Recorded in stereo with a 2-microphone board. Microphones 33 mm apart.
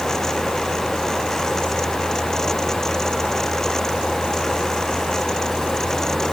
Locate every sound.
Only background noise.